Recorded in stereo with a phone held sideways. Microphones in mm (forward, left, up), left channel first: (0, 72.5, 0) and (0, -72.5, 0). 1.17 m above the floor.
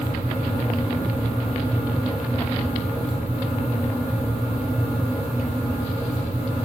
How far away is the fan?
About 2.5 m.